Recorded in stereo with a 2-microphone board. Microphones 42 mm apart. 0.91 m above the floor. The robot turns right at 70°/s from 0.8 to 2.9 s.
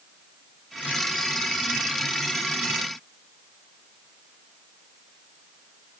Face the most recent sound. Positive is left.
No sound to turn to.